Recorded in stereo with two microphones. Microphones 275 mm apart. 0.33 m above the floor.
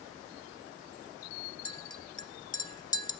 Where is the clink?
15° left (ahead or behind), 0.5 m.